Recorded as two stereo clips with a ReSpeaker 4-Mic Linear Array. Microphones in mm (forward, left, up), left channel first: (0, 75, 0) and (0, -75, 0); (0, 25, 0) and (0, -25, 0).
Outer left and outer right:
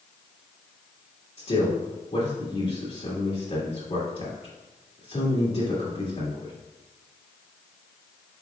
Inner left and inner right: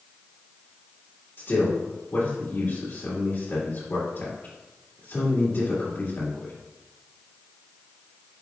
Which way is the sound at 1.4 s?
45° left (ahead or behind).